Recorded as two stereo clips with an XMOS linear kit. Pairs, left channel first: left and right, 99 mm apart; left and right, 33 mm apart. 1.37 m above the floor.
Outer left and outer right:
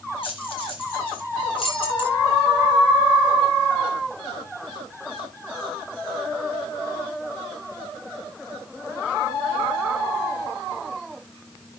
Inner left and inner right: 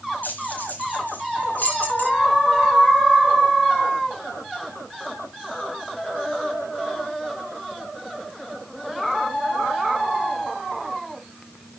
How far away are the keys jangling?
About 4.5 m.